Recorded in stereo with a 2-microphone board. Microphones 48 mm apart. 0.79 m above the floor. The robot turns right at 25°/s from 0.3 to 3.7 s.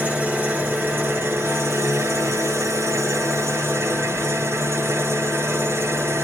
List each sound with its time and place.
0.0 s an engine running: 150° right, 1.6 m; by 6.2 s 65° right, 1.6 m